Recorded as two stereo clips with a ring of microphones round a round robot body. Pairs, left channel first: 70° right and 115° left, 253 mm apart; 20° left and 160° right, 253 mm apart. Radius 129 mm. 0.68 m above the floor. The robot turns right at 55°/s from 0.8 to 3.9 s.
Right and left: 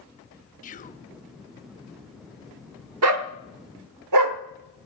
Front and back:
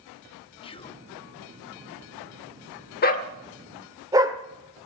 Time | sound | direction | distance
0.6 | whispering | 35° right | 0.8 m
3.0 | a dog barking | 75° left | 0.9 m